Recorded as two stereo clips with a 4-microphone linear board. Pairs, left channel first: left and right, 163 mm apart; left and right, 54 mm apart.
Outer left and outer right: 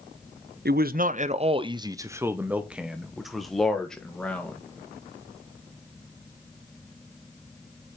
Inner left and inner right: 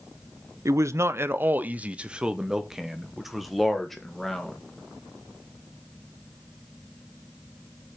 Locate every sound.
0.7 s a man speaking: 75° right (ahead or behind), 0.7 m; by 4.6 s 5° left (ahead or behind), 2.5 m